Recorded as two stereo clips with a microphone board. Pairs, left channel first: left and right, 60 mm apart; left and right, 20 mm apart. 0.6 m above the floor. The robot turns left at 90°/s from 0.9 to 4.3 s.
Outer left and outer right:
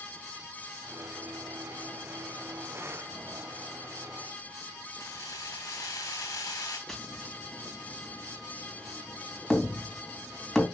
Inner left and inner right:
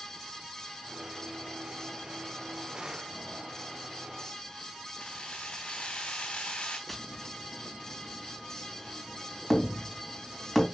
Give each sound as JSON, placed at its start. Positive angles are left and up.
{"t": 5.0, "sound": "keys jangling", "side_deg": 75, "distance_m": 3.0}
{"t": 6.9, "sound": "tapping", "side_deg": 5, "distance_m": 2.5}